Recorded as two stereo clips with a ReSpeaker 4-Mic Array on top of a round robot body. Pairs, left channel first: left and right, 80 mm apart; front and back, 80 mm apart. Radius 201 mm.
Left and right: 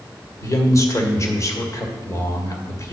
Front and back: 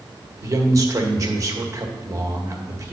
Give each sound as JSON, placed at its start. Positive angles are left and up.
{"t": 0.4, "sound": "a man speaking", "azimuth_deg": 135, "distance_m": 1.8}